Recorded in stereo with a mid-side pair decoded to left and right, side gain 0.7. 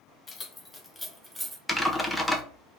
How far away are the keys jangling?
About 1.0 m.